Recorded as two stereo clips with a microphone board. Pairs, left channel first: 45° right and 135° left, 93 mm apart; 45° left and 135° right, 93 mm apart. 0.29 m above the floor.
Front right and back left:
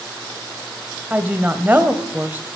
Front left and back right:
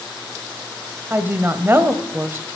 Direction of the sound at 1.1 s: 175° right.